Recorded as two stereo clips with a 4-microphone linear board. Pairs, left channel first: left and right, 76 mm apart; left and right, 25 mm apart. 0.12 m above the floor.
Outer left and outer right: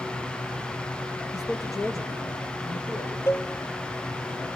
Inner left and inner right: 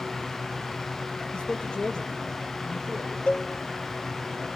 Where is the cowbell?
35° left (ahead or behind), 0.8 m.